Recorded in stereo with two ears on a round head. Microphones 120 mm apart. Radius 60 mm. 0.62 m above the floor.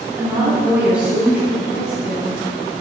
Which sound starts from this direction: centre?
A woman speaking, at 0.2 s.